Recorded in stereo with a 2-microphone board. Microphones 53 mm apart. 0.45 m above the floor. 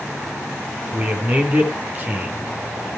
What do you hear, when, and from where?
0.9 s a man speaking: 35° right (ahead or behind), 4.5 m